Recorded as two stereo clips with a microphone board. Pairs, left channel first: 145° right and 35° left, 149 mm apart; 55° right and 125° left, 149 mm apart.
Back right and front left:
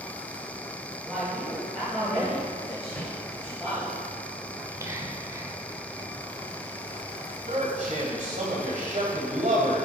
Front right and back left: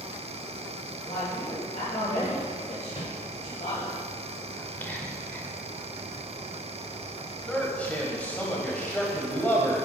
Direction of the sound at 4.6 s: 5° left.